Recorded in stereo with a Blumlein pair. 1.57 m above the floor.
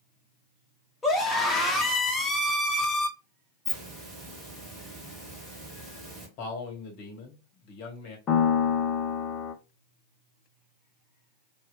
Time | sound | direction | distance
1.0 | a scream | 15° left | 1.2 m
3.6 | a hiss | 15° right | 1.6 m
6.4 | a man speaking | 45° left | 1.1 m
8.3 | a piano | 30° left | 0.6 m